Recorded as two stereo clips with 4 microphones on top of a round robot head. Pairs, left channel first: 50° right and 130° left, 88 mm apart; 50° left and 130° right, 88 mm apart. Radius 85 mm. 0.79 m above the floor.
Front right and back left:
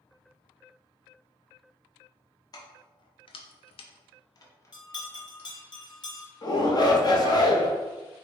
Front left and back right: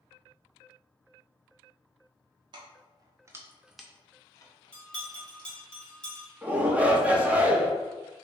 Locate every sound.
2.5 s keys jangling: 95° right, 0.9 m; by 5.5 s 25° left, 1.1 m
4.7 s a bell: 25° right, 1.2 m
6.4 s a shout: 60° right, 1.1 m